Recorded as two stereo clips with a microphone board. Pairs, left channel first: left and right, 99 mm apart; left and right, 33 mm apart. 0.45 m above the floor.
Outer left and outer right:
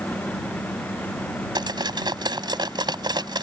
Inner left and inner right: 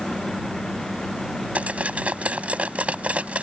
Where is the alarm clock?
No alarm clock in this recording.